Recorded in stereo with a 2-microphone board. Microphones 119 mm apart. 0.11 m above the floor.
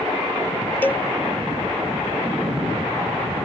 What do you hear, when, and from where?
0.8 s a cowbell: 15° left (ahead or behind)